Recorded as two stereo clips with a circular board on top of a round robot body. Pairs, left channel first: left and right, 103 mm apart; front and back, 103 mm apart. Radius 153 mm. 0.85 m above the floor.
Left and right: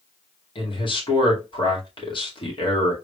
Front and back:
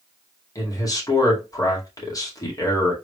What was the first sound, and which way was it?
A man speaking, 55° left.